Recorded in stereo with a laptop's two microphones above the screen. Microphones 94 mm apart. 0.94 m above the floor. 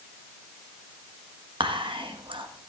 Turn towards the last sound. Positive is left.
turn(degrees=-60)  # may be behind; listen again after turning